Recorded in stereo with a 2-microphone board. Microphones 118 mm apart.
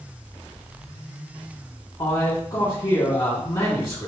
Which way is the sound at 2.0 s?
35° left (ahead or behind).